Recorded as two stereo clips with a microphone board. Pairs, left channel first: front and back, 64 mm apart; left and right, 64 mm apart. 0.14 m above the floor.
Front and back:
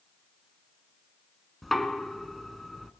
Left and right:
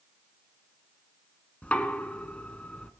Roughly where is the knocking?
Left.